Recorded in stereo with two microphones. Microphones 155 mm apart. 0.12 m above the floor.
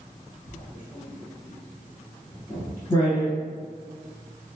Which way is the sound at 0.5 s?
20° left (ahead or behind).